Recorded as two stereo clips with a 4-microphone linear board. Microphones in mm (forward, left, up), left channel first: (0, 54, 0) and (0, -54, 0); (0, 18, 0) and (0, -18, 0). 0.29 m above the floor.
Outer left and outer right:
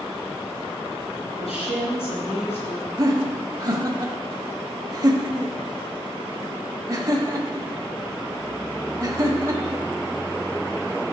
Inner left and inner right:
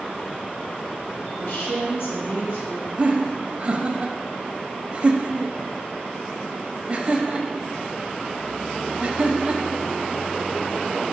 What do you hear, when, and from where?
1.4 s a woman speaking: 70° left (ahead or behind), 3 m
3.0 s laughter: 35° right (ahead or behind), 1.0 m